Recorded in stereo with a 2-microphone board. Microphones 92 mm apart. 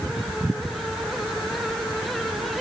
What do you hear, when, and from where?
Only background noise.